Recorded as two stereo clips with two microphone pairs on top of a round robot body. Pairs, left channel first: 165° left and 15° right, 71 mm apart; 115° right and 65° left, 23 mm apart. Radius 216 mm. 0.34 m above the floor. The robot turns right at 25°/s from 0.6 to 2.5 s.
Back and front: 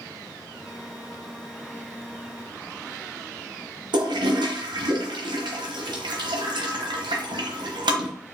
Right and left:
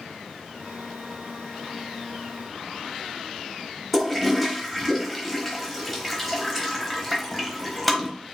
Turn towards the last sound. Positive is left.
turn(degrees=-30)